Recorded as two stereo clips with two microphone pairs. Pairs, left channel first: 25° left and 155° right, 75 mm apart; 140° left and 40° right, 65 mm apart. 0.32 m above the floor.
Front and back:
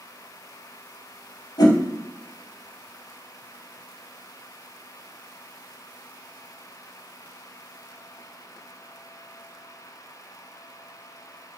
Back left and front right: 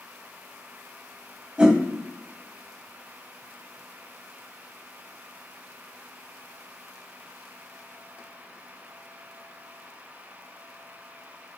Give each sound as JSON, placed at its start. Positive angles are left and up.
{"t": 1.6, "sound": "a whoosh", "azimuth_deg": 35, "distance_m": 0.7}